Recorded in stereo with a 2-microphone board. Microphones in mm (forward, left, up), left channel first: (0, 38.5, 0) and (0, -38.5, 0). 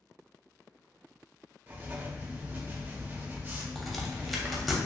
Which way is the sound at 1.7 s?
25° right (ahead or behind).